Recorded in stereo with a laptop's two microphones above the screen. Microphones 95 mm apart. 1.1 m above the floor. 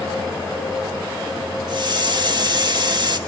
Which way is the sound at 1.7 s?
50° right (ahead or behind).